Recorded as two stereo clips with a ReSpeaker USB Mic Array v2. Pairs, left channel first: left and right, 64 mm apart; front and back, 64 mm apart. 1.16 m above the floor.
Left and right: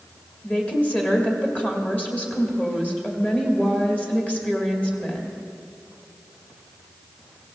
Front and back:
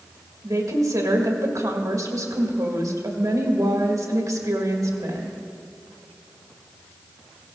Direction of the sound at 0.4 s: 155° left.